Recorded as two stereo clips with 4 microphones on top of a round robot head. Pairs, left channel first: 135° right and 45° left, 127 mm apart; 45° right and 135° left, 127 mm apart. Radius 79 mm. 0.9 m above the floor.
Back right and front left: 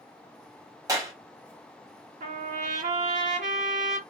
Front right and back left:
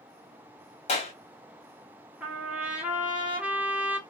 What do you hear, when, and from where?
0.9 s a clap: 15° right, 1.5 m
2.2 s a trumpet: 55° left, 1.5 m